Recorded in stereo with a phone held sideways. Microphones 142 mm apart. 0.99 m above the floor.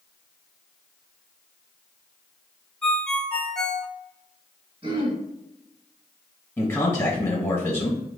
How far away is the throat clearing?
About 1.4 m.